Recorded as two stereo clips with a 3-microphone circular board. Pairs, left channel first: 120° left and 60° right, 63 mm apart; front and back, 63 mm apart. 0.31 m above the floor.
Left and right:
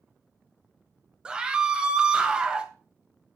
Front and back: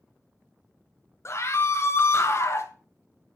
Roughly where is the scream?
Ahead.